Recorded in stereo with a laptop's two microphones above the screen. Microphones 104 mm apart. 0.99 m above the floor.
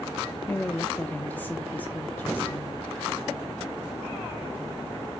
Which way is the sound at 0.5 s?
15° left (ahead or behind).